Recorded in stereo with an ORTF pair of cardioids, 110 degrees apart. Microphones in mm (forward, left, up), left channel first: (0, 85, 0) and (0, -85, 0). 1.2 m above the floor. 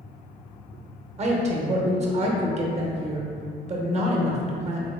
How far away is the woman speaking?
About 0.9 m.